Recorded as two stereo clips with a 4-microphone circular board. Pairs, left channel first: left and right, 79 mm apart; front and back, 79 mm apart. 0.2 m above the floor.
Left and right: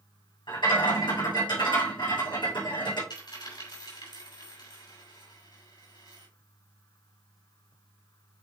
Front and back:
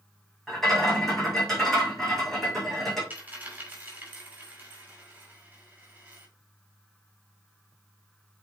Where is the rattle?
85° left, 4 m.